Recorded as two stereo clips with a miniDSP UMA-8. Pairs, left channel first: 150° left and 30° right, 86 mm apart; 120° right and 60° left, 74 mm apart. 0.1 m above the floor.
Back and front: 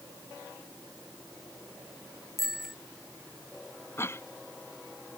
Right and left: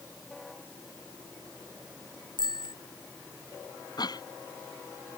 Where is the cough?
150° right.